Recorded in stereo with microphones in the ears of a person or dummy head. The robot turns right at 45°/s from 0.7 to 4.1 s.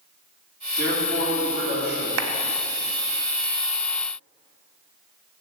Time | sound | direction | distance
0.8 | a man speaking | 170° right | 3 m
2.2 | a clap | 70° right (ahead or behind) | 0.8 m